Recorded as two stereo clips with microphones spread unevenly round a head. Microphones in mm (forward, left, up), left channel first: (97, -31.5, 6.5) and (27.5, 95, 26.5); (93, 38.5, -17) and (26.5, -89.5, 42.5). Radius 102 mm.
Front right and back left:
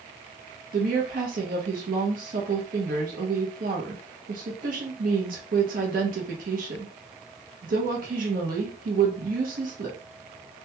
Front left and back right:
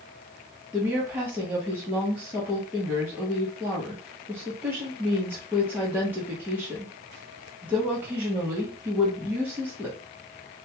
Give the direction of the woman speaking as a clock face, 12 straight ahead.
7 o'clock.